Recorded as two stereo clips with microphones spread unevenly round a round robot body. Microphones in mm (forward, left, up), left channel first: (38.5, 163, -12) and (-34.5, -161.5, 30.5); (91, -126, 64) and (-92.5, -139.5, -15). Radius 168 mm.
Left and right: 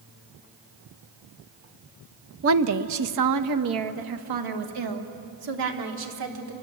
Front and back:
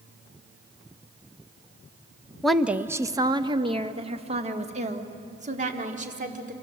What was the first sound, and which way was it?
A woman speaking, 125° right.